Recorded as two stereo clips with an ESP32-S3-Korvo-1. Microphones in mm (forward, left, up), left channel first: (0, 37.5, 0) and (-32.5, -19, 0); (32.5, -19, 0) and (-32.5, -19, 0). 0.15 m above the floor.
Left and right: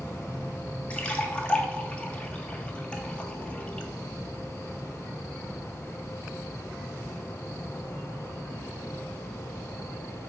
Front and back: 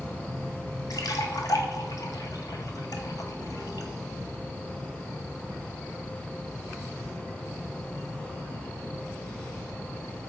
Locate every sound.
0.9 s a splash: 10° right, 0.5 m